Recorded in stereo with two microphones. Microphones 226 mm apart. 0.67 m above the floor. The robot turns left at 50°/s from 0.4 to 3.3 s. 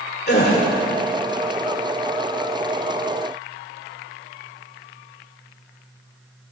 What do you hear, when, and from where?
0.3 s a gasp: 50° left (ahead or behind), 2 m; by 0.6 s 40° left (ahead or behind), 2 m